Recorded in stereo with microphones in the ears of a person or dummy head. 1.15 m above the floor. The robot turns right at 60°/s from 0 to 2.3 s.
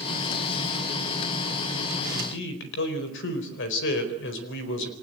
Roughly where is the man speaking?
Left.